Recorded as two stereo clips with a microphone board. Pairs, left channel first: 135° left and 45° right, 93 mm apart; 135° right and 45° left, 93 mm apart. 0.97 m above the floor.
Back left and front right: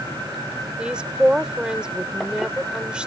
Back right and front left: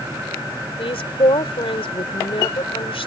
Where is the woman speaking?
125° right.